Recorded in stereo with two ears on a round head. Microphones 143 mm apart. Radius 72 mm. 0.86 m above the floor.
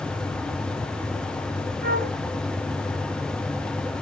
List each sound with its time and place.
1.8 s a flute: 55° right (ahead or behind), 5.5 m